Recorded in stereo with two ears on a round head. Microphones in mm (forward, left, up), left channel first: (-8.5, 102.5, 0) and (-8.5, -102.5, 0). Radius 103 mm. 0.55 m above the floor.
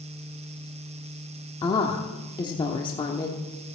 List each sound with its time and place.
1.6 s a woman speaking: 20° left (ahead or behind), 1.0 m